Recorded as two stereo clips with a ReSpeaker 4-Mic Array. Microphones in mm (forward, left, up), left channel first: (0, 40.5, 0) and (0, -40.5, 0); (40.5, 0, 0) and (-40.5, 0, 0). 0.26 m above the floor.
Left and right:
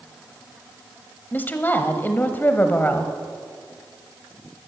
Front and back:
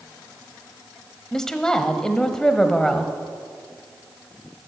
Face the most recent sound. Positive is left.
turn(degrees=75)